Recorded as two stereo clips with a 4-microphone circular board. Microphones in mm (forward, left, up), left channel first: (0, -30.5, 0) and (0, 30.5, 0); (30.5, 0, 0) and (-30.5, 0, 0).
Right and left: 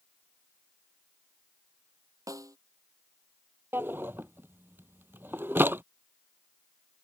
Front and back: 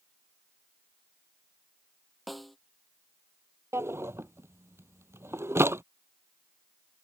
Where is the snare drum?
90° left.